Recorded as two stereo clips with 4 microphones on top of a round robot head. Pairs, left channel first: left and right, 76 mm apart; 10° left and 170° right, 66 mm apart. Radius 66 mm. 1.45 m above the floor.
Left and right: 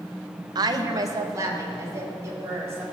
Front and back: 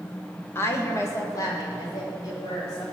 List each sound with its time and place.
0.6 s a woman speaking: 55° right, 1.0 m; by 2.8 s 35° right, 4.5 m